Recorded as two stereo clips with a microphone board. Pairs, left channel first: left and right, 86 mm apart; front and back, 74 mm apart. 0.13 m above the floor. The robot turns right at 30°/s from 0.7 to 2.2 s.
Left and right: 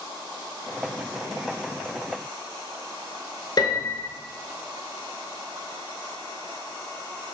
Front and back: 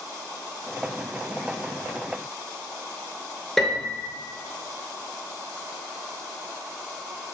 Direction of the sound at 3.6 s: 85° left.